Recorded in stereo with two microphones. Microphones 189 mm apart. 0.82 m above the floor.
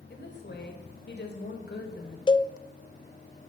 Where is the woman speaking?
65° left (ahead or behind), 3 m.